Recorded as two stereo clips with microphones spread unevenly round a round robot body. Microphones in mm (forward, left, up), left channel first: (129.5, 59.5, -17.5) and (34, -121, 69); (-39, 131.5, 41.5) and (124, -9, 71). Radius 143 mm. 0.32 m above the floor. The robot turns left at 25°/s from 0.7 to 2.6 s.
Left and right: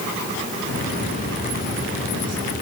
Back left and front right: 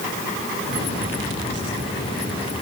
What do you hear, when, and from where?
Only background noise.